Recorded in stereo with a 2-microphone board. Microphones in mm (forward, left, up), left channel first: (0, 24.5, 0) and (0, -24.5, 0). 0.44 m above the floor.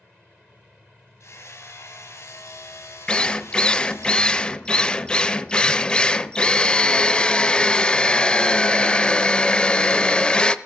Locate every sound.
1.2 s hammering: 70° left (ahead or behind), 2.5 m
3.1 s a drill: 20° left (ahead or behind), 0.5 m